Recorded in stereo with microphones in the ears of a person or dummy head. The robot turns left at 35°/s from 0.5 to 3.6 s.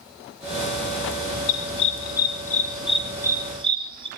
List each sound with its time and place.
1.5 s a dog barking: 50° left (ahead or behind), 4.5 m; by 4.1 s 25° right (ahead or behind), 4.5 m